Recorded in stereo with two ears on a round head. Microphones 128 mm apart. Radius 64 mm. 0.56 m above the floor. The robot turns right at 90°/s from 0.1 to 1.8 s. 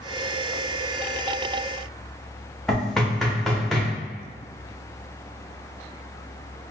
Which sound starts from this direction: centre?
Knocking, at 2.7 s.